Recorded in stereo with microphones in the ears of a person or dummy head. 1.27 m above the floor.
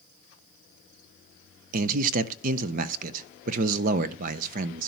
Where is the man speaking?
45° right (ahead or behind), 0.6 m.